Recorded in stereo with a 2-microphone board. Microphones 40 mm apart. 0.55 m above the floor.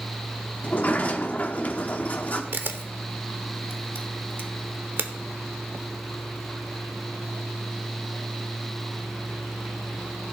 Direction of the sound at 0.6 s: 40° left (ahead or behind).